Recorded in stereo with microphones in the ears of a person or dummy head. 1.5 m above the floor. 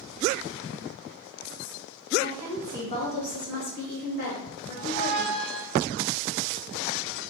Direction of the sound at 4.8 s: 60° left (ahead or behind).